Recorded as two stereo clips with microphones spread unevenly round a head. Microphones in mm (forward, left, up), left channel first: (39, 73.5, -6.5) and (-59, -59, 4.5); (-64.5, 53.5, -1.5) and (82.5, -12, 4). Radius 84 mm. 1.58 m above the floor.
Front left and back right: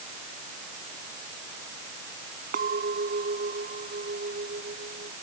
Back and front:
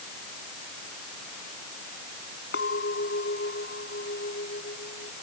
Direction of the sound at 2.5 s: 165° right.